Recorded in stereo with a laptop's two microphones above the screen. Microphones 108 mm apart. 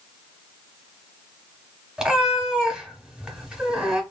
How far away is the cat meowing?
About 0.8 m.